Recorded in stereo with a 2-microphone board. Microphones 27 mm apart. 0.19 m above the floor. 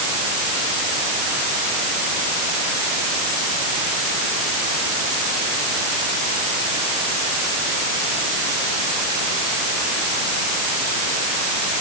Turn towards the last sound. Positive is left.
No sound to turn to.